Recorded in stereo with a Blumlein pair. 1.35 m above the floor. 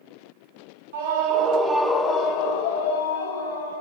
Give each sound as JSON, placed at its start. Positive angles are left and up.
{"t": 0.9, "sound": "a scream", "azimuth_deg": -55, "distance_m": 0.7}